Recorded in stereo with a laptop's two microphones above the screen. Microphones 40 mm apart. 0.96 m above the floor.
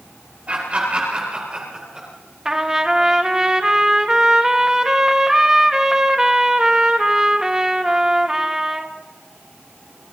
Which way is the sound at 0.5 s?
35° right (ahead or behind).